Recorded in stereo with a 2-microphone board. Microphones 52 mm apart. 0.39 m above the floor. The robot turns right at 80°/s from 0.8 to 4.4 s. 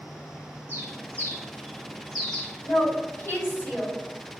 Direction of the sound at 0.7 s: 40° right (ahead or behind).